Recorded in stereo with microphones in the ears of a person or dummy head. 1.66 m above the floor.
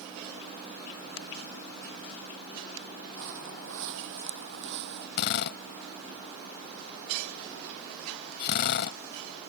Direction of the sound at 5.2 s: 60° left (ahead or behind).